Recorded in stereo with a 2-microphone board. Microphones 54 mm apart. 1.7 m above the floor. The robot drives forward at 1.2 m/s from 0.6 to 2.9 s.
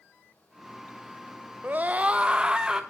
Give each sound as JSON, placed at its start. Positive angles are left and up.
{"t": 1.6, "sound": "a scream", "side_deg": -35, "distance_m": 0.7}